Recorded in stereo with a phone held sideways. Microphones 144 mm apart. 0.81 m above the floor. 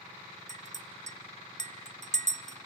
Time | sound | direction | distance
0.5 | a clink | 55° right (ahead or behind) | 0.7 m